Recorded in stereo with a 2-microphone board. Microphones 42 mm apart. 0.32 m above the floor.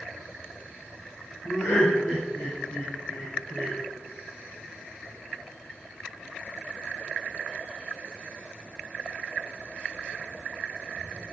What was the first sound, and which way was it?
Laughter, 60° left (ahead or behind).